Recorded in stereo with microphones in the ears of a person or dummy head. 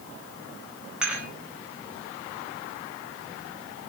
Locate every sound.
1.0 s dishes clattering: 10° right (ahead or behind), 5 m